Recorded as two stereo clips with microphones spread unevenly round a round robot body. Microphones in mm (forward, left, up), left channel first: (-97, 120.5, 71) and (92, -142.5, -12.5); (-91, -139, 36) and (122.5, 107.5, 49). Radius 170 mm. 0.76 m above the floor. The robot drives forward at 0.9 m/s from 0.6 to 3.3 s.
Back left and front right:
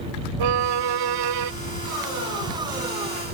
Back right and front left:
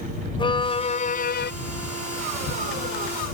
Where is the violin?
55° right; by 1.5 s 70° right.